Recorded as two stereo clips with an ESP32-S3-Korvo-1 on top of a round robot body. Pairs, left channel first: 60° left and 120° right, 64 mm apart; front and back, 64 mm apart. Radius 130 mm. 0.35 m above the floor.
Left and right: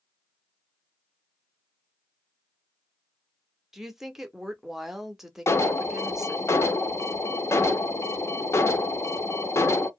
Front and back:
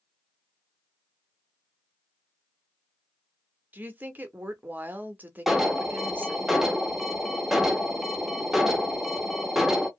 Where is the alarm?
95° left, 0.7 m.